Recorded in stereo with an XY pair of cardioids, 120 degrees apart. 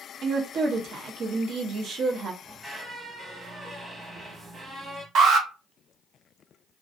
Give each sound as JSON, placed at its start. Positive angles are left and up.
{"t": 0.2, "sound": "a woman speaking", "azimuth_deg": -55, "distance_m": 0.8}
{"t": 2.4, "sound": "a squeak", "azimuth_deg": -10, "distance_m": 1.0}
{"t": 5.2, "sound": "an alarm", "azimuth_deg": -60, "distance_m": 0.8}